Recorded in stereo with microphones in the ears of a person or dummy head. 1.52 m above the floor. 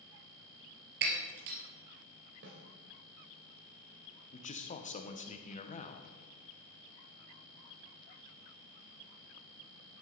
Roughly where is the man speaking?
Left.